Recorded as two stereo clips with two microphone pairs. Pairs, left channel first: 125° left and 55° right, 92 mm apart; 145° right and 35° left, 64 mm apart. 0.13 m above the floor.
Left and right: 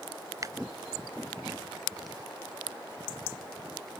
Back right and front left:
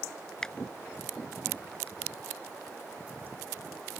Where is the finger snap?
70° right.